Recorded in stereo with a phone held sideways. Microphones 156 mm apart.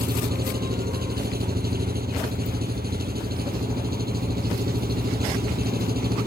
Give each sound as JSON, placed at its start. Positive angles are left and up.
{"t": 0.0, "sound": "an engine running", "side_deg": -80}